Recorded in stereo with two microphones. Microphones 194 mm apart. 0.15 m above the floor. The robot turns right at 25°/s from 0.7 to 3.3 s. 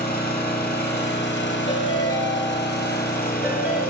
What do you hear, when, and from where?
0.0 s an engine running: 55° left, 1.1 m; by 3.9 s 120° left, 1.1 m
1.7 s a ringtone: 150° left, 0.9 m; by 3.8 s 170° right, 0.9 m